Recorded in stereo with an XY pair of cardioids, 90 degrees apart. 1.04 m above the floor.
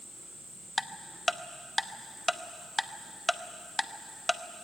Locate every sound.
0.8 s ticking: 10° left, 0.9 m